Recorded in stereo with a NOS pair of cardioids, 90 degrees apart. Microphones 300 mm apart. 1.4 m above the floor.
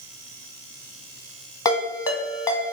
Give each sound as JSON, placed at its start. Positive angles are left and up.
{"t": 1.6, "sound": "a ringtone", "azimuth_deg": 10, "distance_m": 0.8}